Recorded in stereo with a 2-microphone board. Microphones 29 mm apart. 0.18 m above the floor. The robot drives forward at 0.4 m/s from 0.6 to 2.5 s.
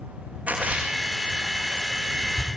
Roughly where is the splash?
Right.